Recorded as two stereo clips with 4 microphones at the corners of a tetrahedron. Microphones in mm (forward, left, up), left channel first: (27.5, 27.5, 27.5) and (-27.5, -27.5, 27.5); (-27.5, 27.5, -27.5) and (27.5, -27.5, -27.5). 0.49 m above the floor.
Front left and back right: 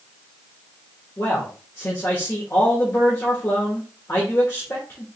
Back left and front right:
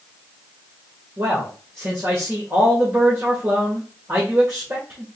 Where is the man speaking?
Straight ahead, 1.5 m.